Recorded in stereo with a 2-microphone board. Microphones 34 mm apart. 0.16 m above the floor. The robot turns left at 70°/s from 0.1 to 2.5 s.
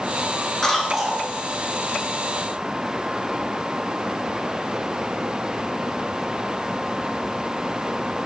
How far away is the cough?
About 1.5 m.